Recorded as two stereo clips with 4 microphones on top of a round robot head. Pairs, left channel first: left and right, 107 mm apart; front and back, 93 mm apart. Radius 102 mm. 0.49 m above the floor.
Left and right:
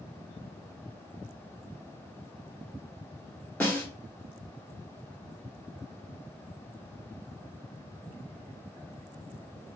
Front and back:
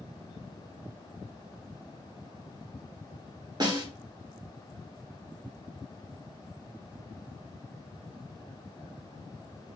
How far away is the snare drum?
About 1.7 m.